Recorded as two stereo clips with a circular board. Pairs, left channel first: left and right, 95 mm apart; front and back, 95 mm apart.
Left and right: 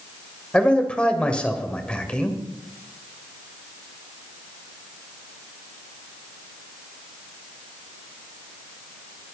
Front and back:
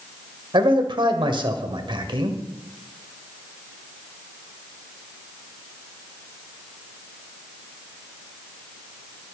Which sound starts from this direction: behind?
A man speaking, at 0.5 s.